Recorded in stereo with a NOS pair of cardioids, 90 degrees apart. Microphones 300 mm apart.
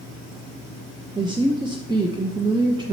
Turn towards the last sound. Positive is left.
turn(degrees=-15)